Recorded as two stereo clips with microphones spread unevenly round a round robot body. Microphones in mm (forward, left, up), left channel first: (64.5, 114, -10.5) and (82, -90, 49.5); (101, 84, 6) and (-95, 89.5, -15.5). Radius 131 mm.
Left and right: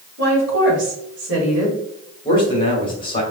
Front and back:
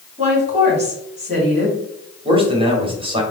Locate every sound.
0.2 s a woman speaking: 130° right, 2 m
2.2 s a man speaking: 130° left, 1.3 m